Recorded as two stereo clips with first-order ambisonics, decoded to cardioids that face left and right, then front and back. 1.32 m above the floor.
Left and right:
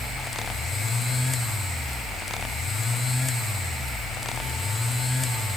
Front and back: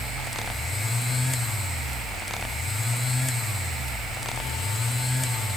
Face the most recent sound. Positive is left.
No sound to turn to.